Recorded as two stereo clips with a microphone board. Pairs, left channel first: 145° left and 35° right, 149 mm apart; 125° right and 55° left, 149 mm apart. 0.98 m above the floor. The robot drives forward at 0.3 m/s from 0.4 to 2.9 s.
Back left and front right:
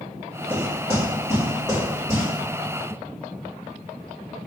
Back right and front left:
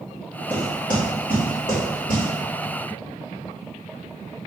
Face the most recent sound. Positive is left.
turn(degrees=-155)